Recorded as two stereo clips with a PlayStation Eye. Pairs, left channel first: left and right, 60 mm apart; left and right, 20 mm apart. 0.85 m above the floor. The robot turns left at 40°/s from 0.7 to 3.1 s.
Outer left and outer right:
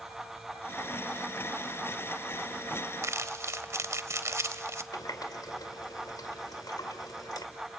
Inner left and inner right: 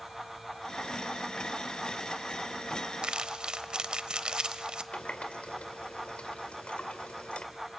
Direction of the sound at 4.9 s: 85° left.